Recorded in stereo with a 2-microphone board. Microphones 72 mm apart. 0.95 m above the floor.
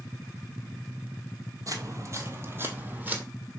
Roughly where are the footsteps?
Right.